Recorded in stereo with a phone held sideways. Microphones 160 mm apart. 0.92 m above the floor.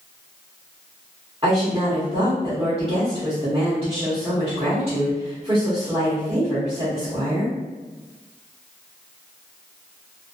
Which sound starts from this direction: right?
A woman speaking, at 1.4 s.